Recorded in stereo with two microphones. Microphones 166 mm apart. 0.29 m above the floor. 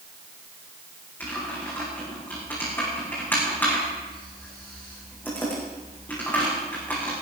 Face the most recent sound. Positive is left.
turn(degrees=10)  # may be behind; listen again after turning